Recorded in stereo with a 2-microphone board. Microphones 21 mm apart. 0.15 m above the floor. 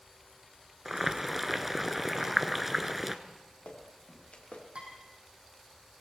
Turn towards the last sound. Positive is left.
turn(degrees=-55)  # may be behind; listen again after turning